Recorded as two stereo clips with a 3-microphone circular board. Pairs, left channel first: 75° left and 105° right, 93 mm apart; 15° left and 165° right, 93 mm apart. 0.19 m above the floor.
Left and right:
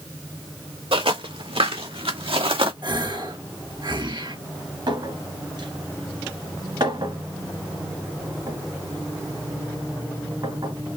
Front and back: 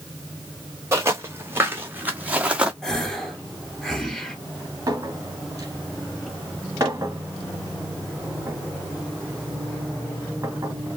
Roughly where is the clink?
Behind right.